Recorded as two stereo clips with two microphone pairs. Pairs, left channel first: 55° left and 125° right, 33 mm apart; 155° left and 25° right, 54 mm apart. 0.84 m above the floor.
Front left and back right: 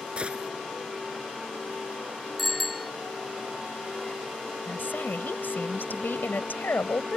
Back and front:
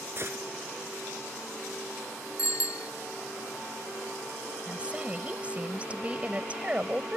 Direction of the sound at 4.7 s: 40° left.